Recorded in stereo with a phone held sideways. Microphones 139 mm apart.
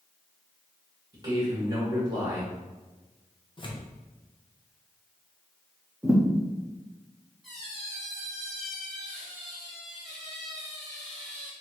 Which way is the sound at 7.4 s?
Centre (ahead or behind).